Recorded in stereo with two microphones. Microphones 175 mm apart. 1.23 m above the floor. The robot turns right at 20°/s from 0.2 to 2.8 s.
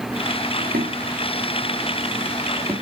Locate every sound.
0.6 s footsteps: 60° right (ahead or behind), 2.5 m; by 2.7 s 20° right (ahead or behind), 3.5 m